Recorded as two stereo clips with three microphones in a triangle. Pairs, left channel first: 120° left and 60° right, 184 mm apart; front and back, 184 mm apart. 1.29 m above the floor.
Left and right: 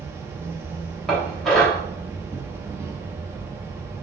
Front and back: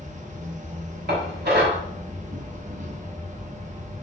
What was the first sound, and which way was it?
An insect, 135° right.